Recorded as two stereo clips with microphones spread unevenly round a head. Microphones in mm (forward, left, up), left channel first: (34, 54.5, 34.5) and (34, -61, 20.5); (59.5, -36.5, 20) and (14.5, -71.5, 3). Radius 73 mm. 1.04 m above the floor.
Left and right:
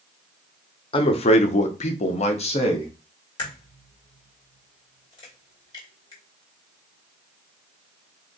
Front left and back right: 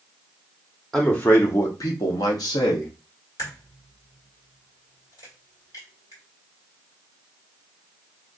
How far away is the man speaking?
About 0.6 m.